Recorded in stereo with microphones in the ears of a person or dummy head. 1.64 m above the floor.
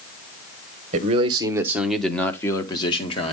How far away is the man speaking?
About 1.3 m.